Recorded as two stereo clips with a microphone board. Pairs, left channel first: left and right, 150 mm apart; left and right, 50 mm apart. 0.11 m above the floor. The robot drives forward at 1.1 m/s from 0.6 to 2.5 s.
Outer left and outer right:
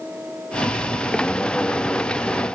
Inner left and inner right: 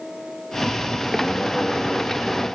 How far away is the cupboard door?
I don't hear a cupboard door.